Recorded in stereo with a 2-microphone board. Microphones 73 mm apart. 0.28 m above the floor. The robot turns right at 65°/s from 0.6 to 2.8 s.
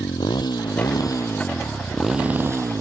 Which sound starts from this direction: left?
A motorcycle, at 0.0 s.